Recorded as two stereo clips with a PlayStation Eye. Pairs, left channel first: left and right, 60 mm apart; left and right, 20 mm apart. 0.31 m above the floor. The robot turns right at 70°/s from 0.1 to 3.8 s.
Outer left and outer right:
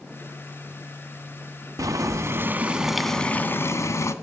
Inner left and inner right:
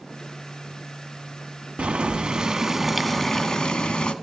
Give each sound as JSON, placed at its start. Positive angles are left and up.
{"t": 1.8, "sound": "boiling", "azimuth_deg": -85, "distance_m": 0.9}